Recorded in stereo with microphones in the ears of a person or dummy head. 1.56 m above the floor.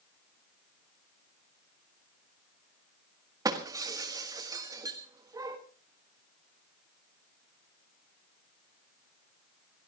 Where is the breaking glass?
20° right (ahead or behind), 1.7 m.